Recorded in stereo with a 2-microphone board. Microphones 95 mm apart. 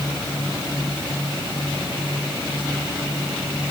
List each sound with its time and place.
Only background noise.